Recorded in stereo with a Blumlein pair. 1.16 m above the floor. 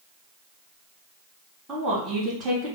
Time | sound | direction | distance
1.7 | a woman speaking | 20° right | 1.4 m